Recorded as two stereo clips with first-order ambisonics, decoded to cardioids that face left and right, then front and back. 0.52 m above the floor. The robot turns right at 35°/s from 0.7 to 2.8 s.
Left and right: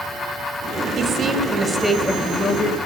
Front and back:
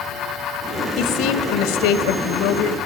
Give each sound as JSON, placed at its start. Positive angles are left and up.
{"t": 1.0, "sound": "a woman speaking", "azimuth_deg": -35, "distance_m": 2.0}